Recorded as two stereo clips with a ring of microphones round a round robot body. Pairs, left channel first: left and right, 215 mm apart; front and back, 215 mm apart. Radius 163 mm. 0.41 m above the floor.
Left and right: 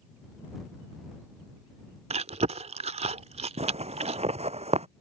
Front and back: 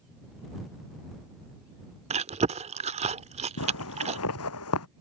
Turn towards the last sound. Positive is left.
turn(degrees=-30)